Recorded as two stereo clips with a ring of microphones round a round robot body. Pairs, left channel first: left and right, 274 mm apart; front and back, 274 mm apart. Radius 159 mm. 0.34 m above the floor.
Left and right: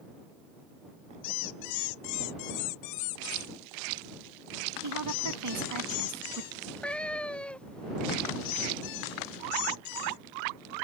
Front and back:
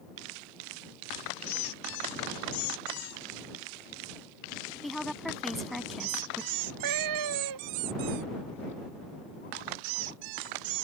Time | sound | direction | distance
4.8 | a woman speaking | 90° right | ?
6.5 | a cat meowing | 175° left | ?